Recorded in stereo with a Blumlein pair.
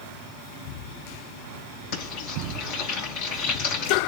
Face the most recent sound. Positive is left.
turn(degrees=50)